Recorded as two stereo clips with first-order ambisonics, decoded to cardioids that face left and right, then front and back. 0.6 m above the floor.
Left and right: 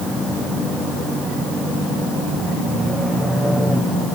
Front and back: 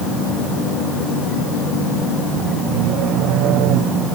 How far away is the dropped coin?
No dropped coin in this recording.